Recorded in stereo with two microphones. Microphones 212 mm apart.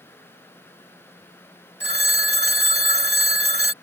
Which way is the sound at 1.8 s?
55° right (ahead or behind).